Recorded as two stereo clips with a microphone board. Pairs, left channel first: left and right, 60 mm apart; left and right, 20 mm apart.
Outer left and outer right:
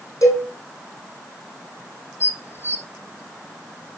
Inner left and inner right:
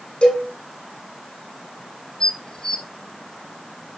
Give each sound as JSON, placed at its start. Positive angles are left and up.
{"t": 0.2, "sound": "a cowbell", "side_deg": 55, "distance_m": 3.5}
{"t": 2.2, "sound": "dishes clattering", "side_deg": 45, "distance_m": 1.5}